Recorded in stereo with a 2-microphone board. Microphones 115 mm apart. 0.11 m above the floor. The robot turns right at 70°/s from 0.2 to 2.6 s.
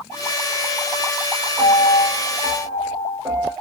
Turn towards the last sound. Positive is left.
turn(degrees=-55)